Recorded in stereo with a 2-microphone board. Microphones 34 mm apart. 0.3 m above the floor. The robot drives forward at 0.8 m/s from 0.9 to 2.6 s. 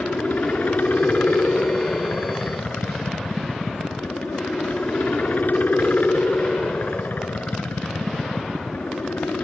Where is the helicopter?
60° left (ahead or behind); by 9.4 s 65° left (ahead or behind).